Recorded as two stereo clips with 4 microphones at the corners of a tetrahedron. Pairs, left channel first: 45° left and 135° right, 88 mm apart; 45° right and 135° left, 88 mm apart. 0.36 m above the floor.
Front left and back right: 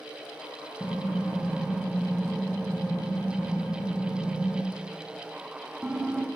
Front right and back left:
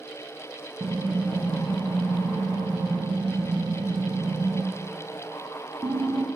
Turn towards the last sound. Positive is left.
turn(degrees=145)